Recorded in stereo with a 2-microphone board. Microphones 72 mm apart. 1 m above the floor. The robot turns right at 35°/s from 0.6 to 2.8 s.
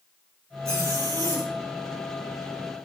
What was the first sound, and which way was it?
A zipper, 140° right.